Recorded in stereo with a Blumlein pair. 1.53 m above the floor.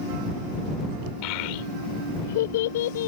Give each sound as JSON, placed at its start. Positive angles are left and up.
{"t": 1.2, "sound": "a child speaking", "azimuth_deg": 40}